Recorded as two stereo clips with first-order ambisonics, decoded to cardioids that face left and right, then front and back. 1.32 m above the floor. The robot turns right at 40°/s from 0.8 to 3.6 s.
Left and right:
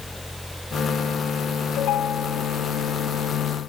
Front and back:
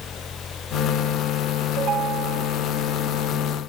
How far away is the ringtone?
About 1.6 m.